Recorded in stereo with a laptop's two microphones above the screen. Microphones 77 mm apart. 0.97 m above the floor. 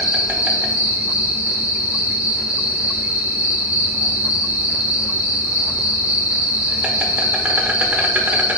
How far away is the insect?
About 1.0 m.